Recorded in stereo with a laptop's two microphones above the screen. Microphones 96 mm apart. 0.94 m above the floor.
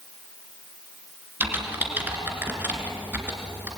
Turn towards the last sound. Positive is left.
turn(degrees=-20)  # may be behind; listen again after turning